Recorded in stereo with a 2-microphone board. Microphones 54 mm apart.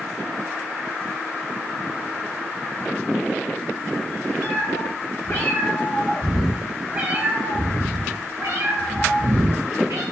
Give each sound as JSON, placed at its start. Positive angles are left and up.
{"t": 4.4, "sound": "a cat meowing", "side_deg": 60, "distance_m": 1.4}